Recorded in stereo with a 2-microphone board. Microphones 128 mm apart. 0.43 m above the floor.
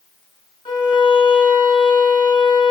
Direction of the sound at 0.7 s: 40° left (ahead or behind).